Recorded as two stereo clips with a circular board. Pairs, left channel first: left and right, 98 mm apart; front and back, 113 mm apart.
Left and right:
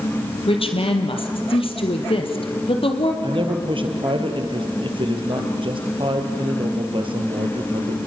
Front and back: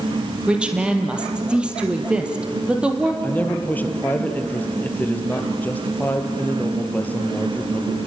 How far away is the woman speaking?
About 3 m.